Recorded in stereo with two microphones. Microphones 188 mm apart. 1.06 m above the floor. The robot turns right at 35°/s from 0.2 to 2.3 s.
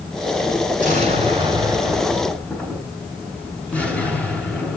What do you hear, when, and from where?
0.8 s an explosion: 45° right, 6.5 m; by 4.8 s 5° left, 6.5 m